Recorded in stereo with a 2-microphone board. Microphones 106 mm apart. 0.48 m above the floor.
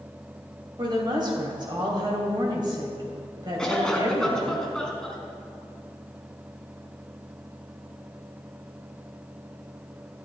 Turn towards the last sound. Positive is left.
turn(degrees=5)  # may be behind; listen again after turning